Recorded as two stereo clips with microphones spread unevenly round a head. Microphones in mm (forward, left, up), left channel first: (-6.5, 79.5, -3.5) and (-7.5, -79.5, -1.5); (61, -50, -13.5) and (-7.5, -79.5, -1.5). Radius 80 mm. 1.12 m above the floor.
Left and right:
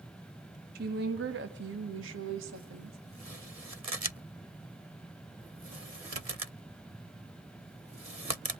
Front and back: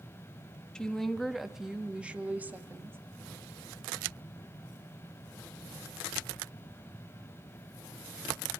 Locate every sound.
0.8 s a woman speaking: 55° right, 2 m; by 3.0 s 95° right, 2.5 m